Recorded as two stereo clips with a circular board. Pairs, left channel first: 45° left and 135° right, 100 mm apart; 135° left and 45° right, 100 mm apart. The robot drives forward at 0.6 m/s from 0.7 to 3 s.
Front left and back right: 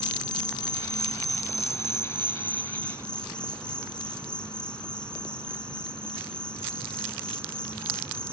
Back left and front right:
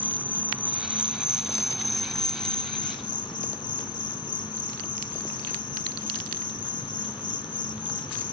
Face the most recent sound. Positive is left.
turn(degrees=125)